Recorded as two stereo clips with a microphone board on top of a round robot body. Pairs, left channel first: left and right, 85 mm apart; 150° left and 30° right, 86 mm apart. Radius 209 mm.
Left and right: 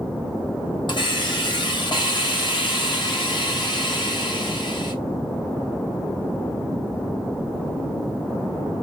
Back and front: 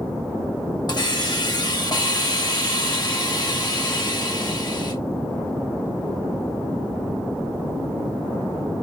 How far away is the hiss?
About 2 m.